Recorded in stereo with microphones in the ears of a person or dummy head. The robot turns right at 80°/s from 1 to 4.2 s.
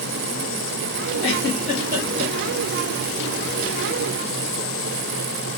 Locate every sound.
1.2 s a giggle: 30° left (ahead or behind), 1.3 m; by 2.3 s 50° right (ahead or behind), 1.3 m